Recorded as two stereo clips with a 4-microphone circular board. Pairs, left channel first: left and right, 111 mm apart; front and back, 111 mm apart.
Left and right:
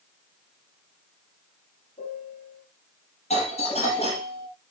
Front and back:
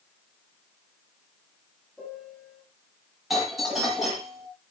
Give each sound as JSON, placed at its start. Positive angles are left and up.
{"t": 2.0, "sound": "a piano", "azimuth_deg": 90, "distance_m": 6.0}
{"t": 3.3, "sound": "a doorbell", "azimuth_deg": 95, "distance_m": 6.0}